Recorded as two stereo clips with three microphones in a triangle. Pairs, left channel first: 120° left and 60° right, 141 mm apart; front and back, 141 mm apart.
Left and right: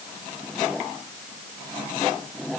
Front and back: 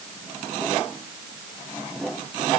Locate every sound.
Only background noise.